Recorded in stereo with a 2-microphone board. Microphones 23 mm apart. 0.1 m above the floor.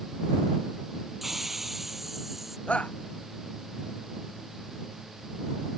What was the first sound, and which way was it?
A hiss, 10° right (ahead or behind).